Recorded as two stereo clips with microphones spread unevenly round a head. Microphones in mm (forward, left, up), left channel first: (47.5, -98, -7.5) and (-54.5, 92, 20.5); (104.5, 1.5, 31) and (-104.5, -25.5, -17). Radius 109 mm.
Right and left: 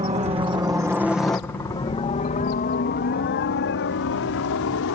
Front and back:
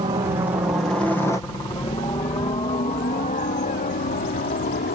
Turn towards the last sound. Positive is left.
turn(degrees=-40)